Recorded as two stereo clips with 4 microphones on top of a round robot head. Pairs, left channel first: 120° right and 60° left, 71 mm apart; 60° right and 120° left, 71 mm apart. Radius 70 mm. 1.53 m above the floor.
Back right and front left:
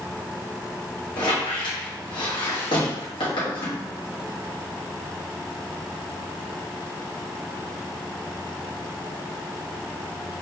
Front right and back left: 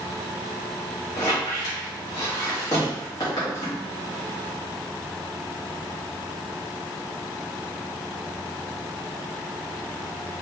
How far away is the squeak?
About 1.6 m.